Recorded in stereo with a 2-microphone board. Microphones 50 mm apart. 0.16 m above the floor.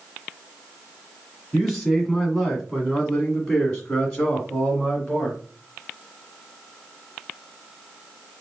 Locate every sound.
1.5 s a man speaking: 5° left (ahead or behind), 1.8 m; by 5.4 s 10° left (ahead or behind), 2 m